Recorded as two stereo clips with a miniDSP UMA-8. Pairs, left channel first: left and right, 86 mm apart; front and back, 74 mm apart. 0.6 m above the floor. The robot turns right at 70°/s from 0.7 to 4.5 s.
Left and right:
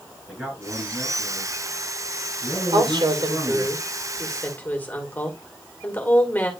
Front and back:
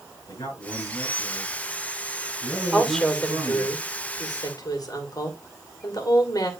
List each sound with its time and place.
0.3 s a man speaking: 5° right, 8 m; by 3.7 s 155° right, 8 m
2.7 s a woman speaking: 105° right, 2.5 m; by 6.5 s 20° left, 2.5 m